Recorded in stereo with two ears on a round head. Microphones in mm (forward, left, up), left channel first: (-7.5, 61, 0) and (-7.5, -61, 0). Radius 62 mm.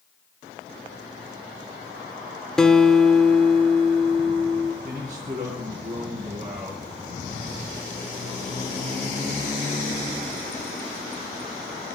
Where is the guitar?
5° left (ahead or behind), 1.4 m.